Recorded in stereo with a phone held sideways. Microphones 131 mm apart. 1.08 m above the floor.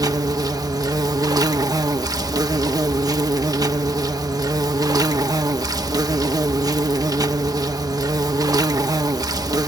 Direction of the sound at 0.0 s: 25° right (ahead or behind).